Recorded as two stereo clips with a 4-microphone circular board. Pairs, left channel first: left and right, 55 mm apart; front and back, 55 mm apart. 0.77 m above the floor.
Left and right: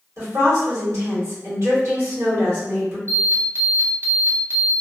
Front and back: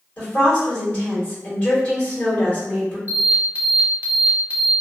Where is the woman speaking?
65° right, 1.6 m.